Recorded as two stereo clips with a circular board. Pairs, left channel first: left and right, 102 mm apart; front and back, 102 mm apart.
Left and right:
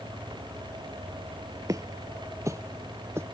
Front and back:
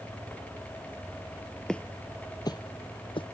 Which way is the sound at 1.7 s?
80° right.